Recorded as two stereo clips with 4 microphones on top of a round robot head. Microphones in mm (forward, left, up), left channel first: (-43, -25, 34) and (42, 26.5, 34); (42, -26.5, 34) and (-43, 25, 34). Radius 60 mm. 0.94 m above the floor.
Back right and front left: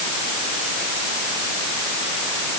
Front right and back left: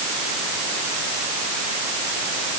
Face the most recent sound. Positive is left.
No sound to turn to.